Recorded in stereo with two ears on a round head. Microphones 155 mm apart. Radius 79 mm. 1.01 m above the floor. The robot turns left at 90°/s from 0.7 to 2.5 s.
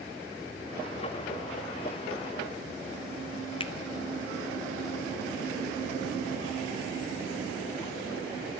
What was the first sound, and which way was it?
A finger snap, 30° left (ahead or behind).